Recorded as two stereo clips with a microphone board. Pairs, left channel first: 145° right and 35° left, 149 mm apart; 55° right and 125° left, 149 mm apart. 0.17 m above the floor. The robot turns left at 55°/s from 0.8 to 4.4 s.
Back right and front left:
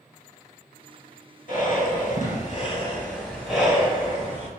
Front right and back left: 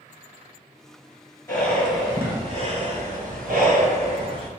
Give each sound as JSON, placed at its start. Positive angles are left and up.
{"t": 1.5, "sound": "breathing", "azimuth_deg": -125, "distance_m": 3.0}